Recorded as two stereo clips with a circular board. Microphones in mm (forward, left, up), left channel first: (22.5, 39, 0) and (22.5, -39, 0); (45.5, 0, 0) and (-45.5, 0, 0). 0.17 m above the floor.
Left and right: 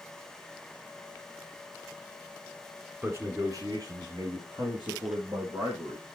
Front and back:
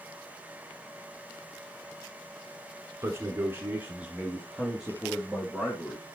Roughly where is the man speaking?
Behind right.